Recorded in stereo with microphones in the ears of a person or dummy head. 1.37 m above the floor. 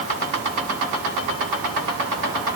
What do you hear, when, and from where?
Only background noise.